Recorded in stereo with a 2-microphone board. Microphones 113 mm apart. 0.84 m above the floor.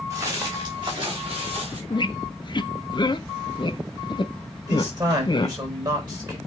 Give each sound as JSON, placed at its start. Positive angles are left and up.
{"t": 0.1, "sound": "footsteps", "side_deg": -35, "distance_m": 4.0}
{"t": 1.9, "sound": "a squeak", "side_deg": 45, "distance_m": 0.6}
{"t": 4.7, "sound": "a man speaking", "side_deg": -40, "distance_m": 4.5}